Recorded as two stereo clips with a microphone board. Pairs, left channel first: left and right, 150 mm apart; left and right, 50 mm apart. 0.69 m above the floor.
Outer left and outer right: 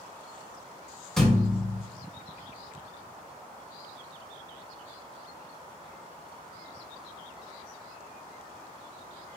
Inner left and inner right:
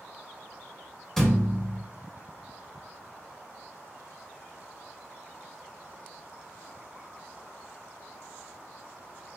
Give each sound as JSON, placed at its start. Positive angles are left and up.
{"t": 1.2, "sound": "a thud", "side_deg": 5, "distance_m": 1.0}